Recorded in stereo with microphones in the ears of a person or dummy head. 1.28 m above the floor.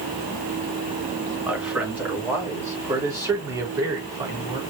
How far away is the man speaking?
About 2.5 m.